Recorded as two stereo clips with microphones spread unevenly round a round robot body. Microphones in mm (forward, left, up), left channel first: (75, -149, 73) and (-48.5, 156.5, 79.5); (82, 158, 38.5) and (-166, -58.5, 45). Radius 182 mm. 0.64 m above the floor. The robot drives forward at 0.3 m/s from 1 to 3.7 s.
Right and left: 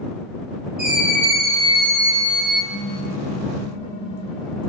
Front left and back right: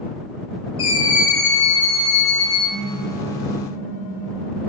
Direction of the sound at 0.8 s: 50° left.